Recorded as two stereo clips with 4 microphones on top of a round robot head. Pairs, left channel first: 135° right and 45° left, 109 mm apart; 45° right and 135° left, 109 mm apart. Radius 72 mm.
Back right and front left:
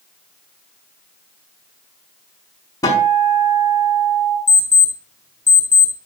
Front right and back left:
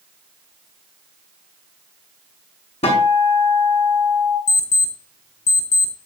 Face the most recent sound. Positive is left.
turn(degrees=-65)